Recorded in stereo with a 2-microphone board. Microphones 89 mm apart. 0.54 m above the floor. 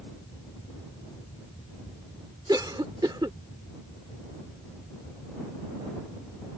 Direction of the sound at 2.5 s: 55° right (ahead or behind).